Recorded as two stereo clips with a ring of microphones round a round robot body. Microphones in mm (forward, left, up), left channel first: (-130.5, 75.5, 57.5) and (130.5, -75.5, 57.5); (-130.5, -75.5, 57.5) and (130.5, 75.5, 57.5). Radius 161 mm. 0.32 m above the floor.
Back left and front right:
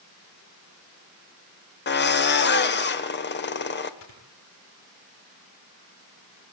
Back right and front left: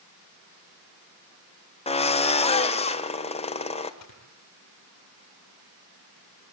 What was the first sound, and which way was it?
A drill, 155° left.